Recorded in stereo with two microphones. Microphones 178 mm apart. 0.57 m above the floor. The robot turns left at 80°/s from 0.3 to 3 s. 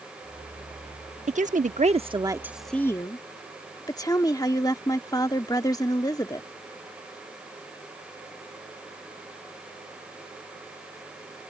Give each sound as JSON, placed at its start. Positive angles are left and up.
{"t": 1.3, "sound": "a woman speaking", "azimuth_deg": -70}